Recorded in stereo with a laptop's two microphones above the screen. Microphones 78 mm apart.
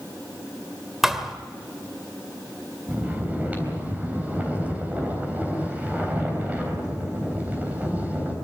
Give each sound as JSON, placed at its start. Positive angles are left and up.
{"t": 1.0, "sound": "a thud", "side_deg": -5, "distance_m": 1.7}
{"t": 2.9, "sound": "snoring", "side_deg": -20, "distance_m": 3.5}